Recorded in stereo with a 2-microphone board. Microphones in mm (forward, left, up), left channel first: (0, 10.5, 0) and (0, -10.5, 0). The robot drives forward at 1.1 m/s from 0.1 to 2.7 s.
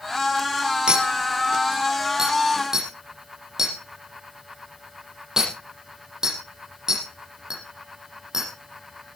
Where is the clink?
45° right (ahead or behind), 3 m; by 8.5 s 25° right (ahead or behind), 5 m.